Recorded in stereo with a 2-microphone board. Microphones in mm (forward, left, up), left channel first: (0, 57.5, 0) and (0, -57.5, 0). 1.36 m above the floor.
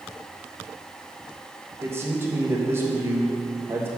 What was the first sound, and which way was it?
A man speaking, 20° right (ahead or behind).